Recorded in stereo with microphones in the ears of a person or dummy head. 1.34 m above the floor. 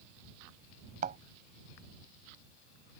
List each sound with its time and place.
1.0 s a thud: 50° right (ahead or behind)